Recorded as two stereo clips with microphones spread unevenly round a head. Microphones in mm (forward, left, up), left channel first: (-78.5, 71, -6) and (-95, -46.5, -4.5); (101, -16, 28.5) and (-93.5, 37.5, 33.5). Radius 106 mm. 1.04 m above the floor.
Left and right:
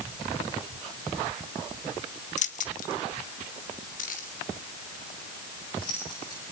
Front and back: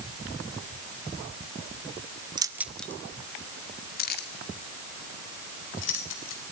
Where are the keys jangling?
95° left, 1.3 m; by 6.4 s 10° left, 5 m.